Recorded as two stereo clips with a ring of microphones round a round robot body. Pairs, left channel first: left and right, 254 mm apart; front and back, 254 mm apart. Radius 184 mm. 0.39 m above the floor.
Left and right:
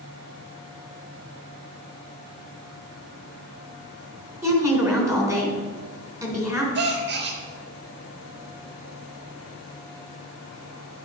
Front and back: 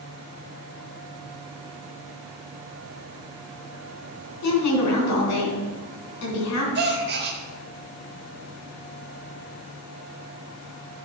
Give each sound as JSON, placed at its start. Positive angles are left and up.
{"t": 4.4, "sound": "a woman speaking", "azimuth_deg": -10, "distance_m": 3.5}
{"t": 6.8, "sound": "a gasp", "azimuth_deg": -135, "distance_m": 0.7}